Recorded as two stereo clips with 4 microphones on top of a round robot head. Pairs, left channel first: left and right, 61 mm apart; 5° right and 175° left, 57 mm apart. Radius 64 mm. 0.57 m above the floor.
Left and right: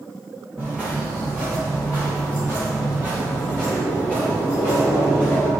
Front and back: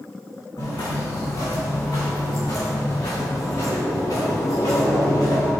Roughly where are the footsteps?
Ahead.